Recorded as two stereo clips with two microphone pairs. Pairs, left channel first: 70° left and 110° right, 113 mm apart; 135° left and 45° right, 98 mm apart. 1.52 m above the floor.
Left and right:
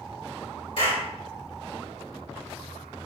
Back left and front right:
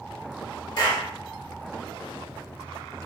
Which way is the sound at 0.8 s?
100° left.